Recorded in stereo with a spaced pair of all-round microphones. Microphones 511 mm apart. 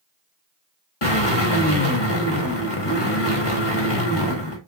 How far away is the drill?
About 1.8 m.